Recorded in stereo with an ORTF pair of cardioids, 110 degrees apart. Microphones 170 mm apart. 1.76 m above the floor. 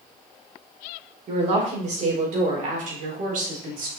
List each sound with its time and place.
1.3 s a woman speaking: 45° right, 5.5 m; by 3.9 s 60° right, 4 m